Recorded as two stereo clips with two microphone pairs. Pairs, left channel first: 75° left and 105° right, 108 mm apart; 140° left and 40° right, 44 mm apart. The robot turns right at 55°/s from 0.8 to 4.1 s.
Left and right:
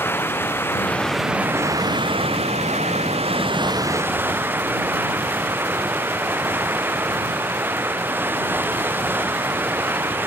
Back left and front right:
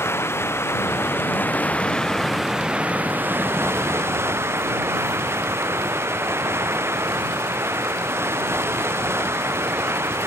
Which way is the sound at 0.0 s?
145° left.